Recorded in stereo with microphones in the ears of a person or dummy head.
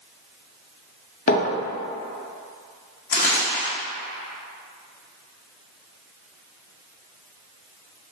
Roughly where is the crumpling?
Left.